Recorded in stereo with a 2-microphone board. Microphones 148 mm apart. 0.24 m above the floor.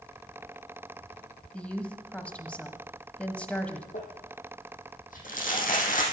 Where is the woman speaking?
10° left (ahead or behind), 1.3 m.